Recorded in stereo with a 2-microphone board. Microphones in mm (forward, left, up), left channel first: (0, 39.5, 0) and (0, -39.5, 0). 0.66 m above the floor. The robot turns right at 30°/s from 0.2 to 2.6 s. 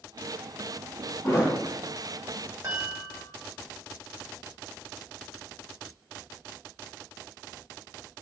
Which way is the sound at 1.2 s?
40° left (ahead or behind).